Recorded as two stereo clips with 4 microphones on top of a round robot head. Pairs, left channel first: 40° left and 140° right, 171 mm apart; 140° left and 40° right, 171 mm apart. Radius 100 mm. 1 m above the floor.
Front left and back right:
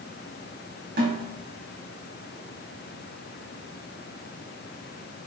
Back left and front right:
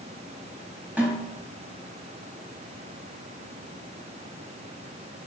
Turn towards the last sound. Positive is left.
turn(degrees=-120)